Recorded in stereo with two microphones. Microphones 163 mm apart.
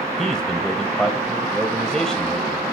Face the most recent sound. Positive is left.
turn(degrees=5)  # may be behind; listen again after turning